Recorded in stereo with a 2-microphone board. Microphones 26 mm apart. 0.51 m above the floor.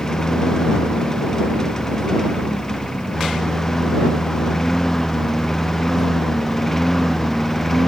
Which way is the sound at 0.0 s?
25° left (ahead or behind).